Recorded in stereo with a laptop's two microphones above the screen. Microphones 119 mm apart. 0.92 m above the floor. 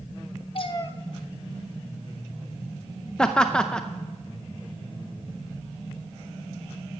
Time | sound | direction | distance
0.6 | a cat meowing | 50° left (ahead or behind) | 0.7 m
3.2 | laughter | 5° left (ahead or behind) | 0.5 m